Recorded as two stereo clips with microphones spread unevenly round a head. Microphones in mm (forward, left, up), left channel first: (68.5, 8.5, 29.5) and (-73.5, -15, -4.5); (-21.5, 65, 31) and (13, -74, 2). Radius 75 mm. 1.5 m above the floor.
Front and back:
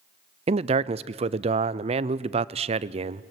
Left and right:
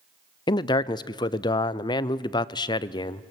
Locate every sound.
0.5 s a man speaking: 165° left, 0.6 m